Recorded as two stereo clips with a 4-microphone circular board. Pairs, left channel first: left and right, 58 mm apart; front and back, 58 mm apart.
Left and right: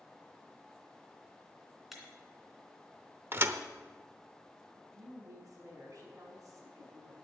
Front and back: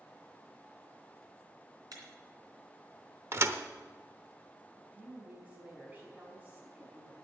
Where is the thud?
140° right, 0.8 m.